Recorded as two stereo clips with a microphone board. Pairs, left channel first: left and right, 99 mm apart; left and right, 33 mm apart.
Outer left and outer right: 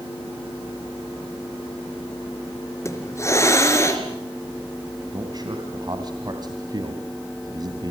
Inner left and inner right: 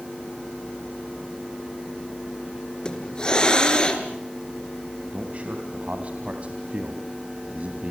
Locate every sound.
2.9 s a hiss: 25° left (ahead or behind), 3.5 m
5.1 s a man speaking: 40° right (ahead or behind), 2.5 m